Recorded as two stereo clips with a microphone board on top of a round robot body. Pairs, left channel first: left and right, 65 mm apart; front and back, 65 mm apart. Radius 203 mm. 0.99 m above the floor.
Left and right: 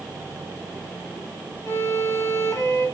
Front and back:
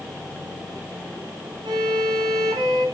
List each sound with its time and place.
1.6 s a violin: 145° left, 1.4 m